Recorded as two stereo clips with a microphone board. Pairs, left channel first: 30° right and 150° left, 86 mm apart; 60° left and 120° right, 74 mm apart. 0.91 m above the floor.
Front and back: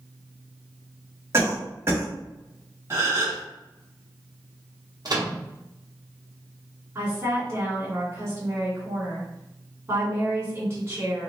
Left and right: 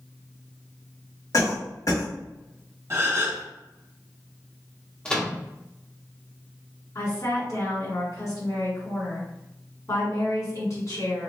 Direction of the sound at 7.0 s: 95° left.